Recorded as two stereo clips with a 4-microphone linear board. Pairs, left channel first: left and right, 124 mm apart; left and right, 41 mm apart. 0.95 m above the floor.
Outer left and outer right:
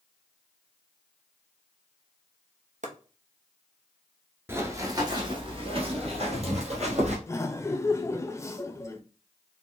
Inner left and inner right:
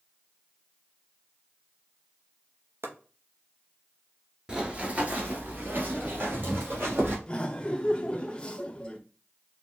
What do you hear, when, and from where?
2.8 s chopping: 80° right, 0.8 m
4.5 s running footsteps: 20° right (ahead or behind), 1.0 m; by 7.2 s 60° right (ahead or behind), 2 m
7.3 s laughter: 25° left (ahead or behind), 0.6 m